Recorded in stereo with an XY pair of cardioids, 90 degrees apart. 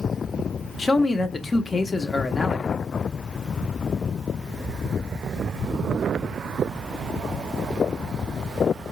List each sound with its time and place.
0.8 s a man speaking: 40° left, 0.8 m